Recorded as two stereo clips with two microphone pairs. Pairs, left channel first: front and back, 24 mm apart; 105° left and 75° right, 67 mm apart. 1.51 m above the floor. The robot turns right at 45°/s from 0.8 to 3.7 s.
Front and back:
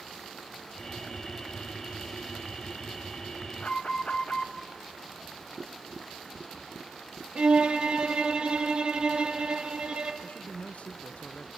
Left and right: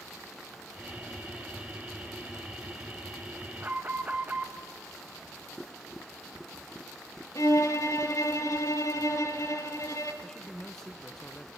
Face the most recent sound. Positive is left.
turn(degrees=25)